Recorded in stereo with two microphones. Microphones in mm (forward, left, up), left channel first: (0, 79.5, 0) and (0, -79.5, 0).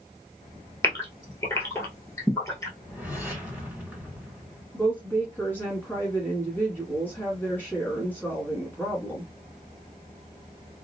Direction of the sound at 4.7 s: 10° left (ahead or behind).